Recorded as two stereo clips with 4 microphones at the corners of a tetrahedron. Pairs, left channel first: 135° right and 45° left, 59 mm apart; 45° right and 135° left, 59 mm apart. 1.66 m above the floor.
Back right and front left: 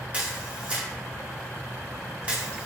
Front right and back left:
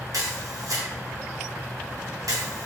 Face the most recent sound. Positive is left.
turn(degrees=115)